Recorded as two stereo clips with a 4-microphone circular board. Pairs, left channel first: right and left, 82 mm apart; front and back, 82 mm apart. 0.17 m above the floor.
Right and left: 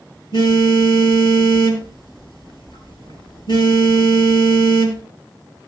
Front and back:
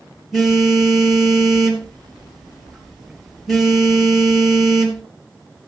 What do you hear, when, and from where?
0.3 s a phone buzzing: 90° right, 2.5 m